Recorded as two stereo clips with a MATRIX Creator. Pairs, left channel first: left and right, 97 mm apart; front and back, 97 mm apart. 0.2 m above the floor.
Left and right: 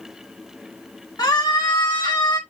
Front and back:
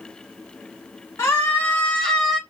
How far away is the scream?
About 2 m.